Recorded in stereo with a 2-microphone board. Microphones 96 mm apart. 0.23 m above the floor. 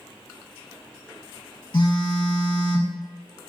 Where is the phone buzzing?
55° left (ahead or behind), 0.6 m.